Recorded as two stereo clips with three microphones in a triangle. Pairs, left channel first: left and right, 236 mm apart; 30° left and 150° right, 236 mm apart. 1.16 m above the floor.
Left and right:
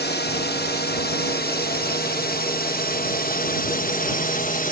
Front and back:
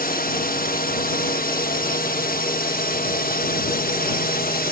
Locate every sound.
0.0 s a drone: 65° left; by 4.7 s 55° left